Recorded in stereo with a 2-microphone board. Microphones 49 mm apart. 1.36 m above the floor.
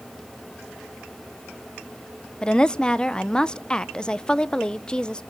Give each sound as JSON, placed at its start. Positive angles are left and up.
{"t": 2.4, "sound": "a woman speaking", "side_deg": 15, "distance_m": 0.8}